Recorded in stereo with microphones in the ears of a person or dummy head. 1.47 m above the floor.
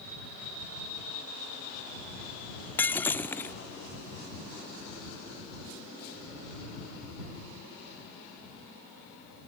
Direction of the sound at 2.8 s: 10° left (ahead or behind).